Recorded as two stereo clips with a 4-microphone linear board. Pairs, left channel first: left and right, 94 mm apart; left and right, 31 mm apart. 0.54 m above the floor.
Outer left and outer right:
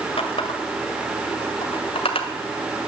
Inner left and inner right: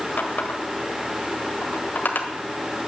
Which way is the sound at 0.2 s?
70° left (ahead or behind).